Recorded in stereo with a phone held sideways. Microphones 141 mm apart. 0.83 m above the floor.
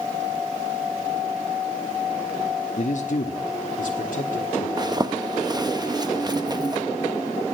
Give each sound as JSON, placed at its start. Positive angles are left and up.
{"t": 2.8, "sound": "a man speaking", "side_deg": 60, "distance_m": 1.0}
{"t": 4.8, "sound": "a zipper", "side_deg": -30, "distance_m": 0.8}